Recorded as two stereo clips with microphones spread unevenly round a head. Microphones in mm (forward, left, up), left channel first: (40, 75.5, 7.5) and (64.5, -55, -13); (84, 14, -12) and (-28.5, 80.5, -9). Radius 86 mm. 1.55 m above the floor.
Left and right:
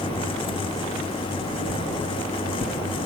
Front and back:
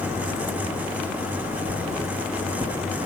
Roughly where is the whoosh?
Left.